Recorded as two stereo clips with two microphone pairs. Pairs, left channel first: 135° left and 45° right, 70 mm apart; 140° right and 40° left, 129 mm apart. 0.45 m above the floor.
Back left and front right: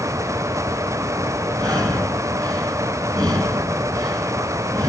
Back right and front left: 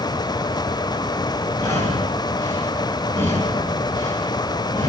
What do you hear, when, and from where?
1.6 s breathing: 70° right, 4 m